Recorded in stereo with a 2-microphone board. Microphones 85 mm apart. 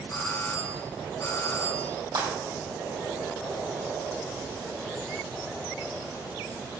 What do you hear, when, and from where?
0.1 s a doorbell: 40° left (ahead or behind), 3 m
2.1 s breaking glass: 70° right (ahead or behind), 4.5 m